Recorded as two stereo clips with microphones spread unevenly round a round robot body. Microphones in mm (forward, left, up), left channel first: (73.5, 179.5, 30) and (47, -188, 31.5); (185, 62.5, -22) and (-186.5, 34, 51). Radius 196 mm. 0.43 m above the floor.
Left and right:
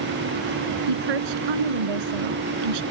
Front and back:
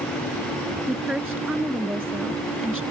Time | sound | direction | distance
0.9 | a woman speaking | 90° right | ?